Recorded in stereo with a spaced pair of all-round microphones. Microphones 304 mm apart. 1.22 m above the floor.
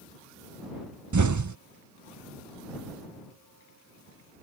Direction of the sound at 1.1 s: 70° right (ahead or behind).